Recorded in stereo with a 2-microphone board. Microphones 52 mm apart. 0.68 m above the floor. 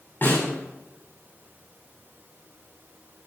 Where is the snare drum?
40° left (ahead or behind), 6 m.